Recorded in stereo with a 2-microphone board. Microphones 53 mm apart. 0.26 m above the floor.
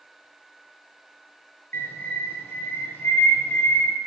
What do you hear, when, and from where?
1.7 s a bird: 40° left (ahead or behind), 2 m